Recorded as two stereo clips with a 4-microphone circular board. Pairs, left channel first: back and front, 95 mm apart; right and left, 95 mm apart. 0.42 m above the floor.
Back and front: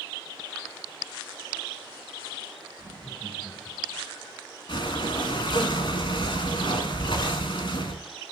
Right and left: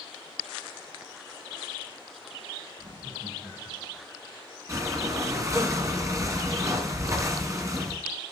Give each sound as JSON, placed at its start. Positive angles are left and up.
{"t": 2.8, "sound": "laughter", "azimuth_deg": 85, "distance_m": 4.5}
{"t": 4.7, "sound": "breathing", "azimuth_deg": 145, "distance_m": 2.0}